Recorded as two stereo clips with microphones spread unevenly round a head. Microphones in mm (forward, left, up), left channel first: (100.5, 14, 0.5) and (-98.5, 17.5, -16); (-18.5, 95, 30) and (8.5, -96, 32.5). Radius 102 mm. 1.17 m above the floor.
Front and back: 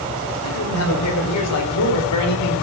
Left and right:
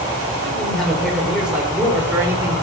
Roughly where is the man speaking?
Ahead.